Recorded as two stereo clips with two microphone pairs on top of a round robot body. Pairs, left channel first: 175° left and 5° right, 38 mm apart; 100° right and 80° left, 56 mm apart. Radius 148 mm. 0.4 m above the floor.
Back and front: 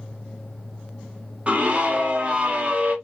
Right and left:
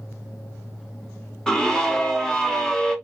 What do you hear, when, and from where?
1.5 s a scream: 30° right, 1.3 m